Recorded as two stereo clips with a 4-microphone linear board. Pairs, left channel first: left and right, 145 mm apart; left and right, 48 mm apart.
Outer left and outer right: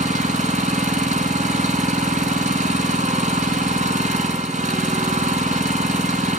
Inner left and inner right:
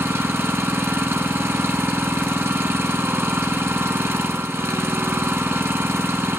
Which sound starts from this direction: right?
An engine running, at 0.0 s.